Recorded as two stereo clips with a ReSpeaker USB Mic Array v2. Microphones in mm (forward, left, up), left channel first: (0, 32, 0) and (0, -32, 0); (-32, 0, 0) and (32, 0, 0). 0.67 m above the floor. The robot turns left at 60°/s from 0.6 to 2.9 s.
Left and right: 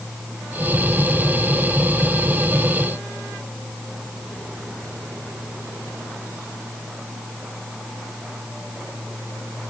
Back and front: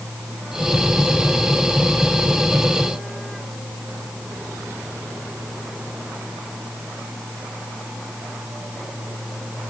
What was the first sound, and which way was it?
Only background noise.